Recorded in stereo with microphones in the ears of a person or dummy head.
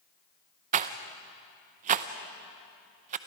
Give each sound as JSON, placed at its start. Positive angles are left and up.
{"t": 0.7, "sound": "a rattle", "side_deg": -35, "distance_m": 0.7}